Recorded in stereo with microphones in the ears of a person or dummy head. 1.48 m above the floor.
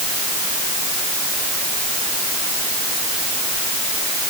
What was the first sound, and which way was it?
Only background noise.